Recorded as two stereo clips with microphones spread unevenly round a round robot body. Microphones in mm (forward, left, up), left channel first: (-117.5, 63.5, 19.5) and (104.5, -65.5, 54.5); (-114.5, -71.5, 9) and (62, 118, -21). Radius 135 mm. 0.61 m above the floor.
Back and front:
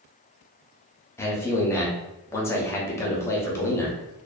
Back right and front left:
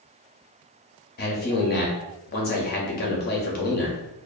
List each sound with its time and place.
1.2 s a man speaking: 155° right, 0.6 m